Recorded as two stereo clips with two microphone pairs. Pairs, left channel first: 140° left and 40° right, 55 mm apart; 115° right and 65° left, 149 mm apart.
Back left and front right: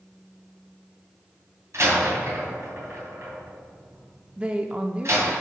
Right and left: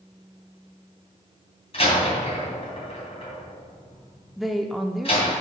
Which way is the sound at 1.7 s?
70° right.